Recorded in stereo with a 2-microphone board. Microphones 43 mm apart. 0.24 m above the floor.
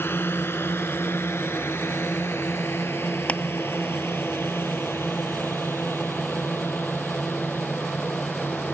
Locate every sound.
0.0 s a drone: 60° left (ahead or behind)
3.3 s crushing: 30° left (ahead or behind)